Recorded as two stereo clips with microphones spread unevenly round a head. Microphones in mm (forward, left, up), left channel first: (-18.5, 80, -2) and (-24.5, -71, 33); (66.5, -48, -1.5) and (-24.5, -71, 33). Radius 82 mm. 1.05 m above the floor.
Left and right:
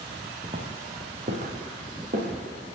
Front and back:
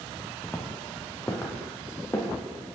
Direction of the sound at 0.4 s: 90° right.